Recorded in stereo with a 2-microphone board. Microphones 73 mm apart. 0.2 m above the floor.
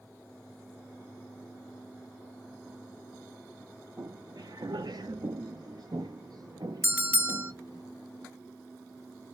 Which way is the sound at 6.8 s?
25° right (ahead or behind).